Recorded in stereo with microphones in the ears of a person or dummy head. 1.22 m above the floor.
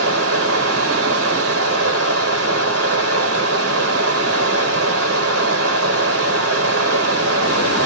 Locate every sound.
0.0 s running water: 65° right (ahead or behind), 0.9 m